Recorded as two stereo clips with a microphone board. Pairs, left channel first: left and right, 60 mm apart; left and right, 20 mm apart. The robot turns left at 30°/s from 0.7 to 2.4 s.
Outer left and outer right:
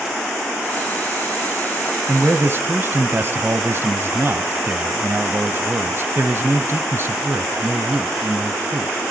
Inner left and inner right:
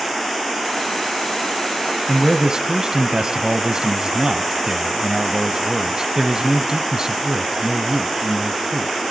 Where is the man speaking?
35° right (ahead or behind), 1.2 m; by 9.0 s 40° right (ahead or behind), 1.2 m.